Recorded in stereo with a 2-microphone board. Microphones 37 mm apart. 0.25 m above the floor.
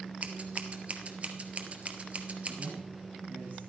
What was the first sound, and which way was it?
Scissors, 40° right (ahead or behind).